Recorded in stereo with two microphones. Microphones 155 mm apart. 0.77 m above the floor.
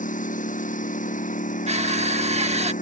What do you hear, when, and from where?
0.0 s a lawn mower: 55° left (ahead or behind)
1.7 s crushing: 45° right (ahead or behind)